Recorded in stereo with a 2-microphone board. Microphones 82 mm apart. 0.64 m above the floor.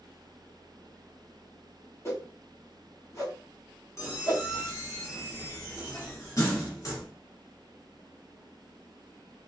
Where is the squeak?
40° left (ahead or behind), 1.9 m.